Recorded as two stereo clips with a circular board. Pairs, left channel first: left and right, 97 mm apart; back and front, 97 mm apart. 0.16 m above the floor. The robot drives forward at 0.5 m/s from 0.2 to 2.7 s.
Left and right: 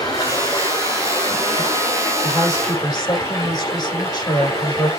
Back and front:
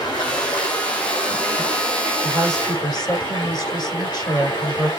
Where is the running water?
140° left, 3.5 m; by 5.0 s 150° left, 4.5 m.